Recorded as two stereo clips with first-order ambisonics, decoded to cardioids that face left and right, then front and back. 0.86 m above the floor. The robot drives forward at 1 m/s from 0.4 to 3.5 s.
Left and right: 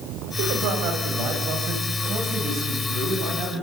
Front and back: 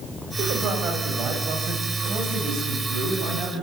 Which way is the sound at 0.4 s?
120° right.